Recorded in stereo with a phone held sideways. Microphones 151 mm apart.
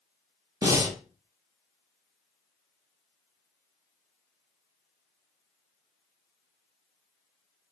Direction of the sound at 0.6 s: 20° right (ahead or behind).